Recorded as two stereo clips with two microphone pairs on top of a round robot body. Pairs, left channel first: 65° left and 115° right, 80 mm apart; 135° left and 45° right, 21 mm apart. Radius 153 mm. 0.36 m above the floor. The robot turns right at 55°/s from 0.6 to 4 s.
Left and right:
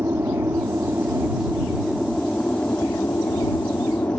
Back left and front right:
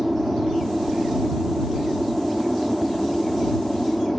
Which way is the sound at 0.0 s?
90° right.